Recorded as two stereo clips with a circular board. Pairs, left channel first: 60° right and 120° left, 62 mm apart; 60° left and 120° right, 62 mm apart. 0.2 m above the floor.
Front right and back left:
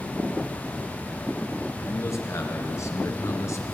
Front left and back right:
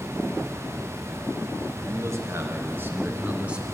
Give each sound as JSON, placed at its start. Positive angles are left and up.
{"t": 1.8, "sound": "a man speaking", "azimuth_deg": -95, "distance_m": 3.5}